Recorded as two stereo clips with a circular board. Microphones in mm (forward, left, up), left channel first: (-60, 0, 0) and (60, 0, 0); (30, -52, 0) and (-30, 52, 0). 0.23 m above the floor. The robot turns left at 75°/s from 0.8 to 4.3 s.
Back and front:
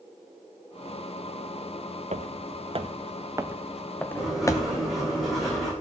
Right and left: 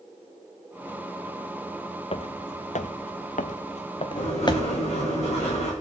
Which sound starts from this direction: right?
Writing, at 4.2 s.